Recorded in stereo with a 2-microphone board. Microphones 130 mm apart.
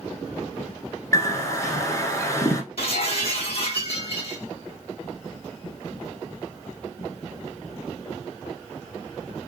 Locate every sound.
1.1 s a bird: 25° left (ahead or behind), 0.9 m
2.8 s breaking glass: 50° left (ahead or behind), 1.0 m